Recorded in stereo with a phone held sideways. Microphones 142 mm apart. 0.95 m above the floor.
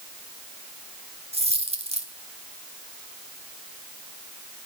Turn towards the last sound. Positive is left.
turn(degrees=-45)  # may be behind; listen again after turning